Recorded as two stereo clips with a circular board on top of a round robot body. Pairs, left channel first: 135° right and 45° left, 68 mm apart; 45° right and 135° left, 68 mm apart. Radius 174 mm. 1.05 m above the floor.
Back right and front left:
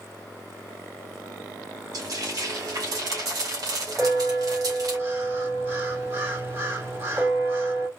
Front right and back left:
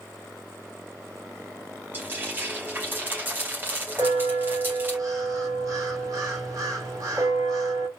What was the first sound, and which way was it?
Frying, 75° left.